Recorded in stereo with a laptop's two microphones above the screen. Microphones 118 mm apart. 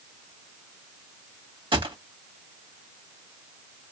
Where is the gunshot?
45° right (ahead or behind), 1.4 m.